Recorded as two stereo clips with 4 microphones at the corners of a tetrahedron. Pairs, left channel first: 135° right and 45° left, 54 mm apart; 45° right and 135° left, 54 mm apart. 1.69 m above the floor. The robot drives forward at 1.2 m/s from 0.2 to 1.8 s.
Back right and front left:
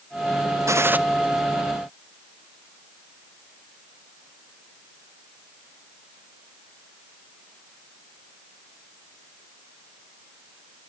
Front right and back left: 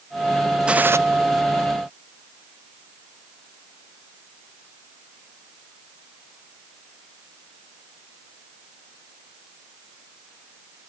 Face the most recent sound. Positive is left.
turn(degrees=155)